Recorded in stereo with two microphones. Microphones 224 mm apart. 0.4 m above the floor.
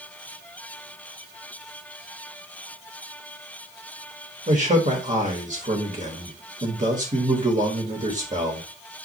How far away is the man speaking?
About 1.5 m.